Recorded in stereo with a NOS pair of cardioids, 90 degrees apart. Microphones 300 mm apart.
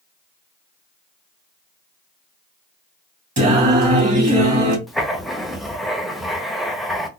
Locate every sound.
3.4 s singing: 25° right, 2 m
4.9 s writing: straight ahead, 0.9 m